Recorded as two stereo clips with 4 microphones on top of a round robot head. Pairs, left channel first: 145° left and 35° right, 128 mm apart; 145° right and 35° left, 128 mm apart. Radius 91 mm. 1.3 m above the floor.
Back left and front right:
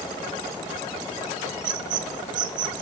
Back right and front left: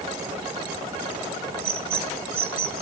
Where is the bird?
10° right, 1.8 m.